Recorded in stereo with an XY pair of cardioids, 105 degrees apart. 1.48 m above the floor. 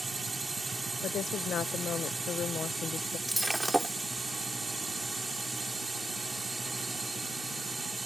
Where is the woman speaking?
60° left.